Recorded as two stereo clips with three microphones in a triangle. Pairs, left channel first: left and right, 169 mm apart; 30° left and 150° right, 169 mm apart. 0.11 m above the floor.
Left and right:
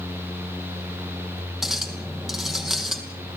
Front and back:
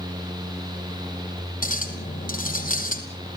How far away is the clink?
About 3 m.